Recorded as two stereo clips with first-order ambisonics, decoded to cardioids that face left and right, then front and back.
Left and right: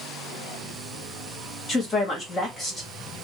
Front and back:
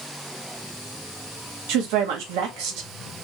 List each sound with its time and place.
1.7 s a woman speaking: 160° left, 1.9 m